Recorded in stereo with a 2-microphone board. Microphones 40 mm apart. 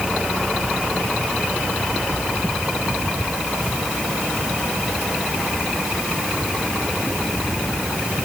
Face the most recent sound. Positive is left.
No sound to turn to.